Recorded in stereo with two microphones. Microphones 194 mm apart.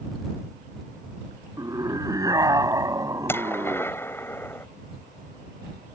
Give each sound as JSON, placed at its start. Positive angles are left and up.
{"t": 1.6, "sound": "a scream", "side_deg": -20}
{"t": 3.3, "sound": "a gunshot", "side_deg": 10}